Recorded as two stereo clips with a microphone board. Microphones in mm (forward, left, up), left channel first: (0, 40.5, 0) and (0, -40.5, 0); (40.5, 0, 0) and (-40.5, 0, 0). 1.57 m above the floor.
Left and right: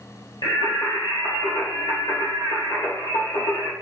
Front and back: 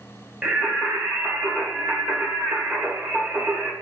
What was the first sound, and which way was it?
Singing, 105° left.